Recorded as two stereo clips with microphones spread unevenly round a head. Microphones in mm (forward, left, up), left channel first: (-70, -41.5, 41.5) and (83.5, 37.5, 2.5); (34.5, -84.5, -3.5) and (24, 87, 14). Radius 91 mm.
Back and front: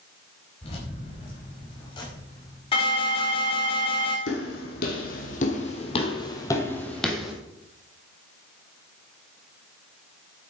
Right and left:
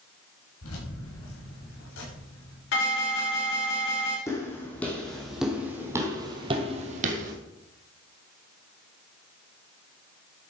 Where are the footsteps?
165° right, 3 m; by 7.3 s 125° left, 2 m.